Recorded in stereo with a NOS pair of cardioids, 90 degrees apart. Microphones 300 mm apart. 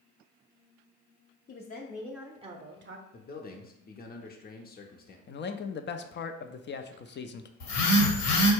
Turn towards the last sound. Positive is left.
turn(degrees=65)